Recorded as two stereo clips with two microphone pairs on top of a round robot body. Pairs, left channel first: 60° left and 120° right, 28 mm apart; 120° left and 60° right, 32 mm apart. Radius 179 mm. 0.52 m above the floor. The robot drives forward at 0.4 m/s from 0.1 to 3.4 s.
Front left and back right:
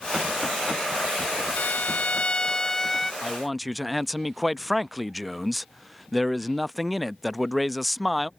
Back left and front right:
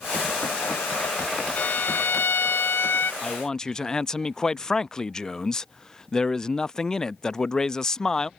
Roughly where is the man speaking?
Behind left.